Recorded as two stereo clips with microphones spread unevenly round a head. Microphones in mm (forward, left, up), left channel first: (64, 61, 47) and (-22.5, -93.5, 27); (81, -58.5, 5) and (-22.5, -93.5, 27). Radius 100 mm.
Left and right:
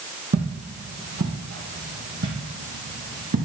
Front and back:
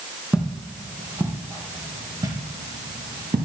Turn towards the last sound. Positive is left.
turn(degrees=-135)